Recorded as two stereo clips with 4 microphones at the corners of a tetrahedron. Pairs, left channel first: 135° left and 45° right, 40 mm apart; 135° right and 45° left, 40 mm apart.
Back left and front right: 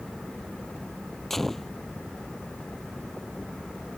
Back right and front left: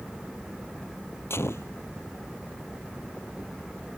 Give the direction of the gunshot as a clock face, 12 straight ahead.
5 o'clock.